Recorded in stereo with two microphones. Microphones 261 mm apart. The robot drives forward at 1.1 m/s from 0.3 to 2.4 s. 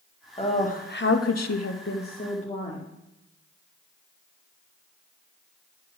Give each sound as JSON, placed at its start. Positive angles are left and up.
{"t": 0.4, "sound": "a woman speaking", "side_deg": 25, "distance_m": 1.3}